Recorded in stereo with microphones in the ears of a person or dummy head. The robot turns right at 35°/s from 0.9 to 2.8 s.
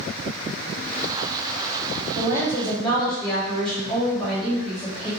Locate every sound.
2.1 s a woman speaking: 20° right (ahead or behind), 1.8 m; by 5.1 s 5° left (ahead or behind), 1.8 m